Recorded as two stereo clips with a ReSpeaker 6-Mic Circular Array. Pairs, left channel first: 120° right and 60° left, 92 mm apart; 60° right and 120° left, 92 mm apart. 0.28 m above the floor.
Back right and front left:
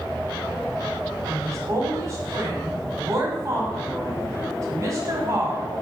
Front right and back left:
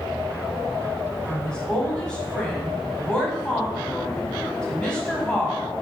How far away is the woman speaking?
About 1.4 m.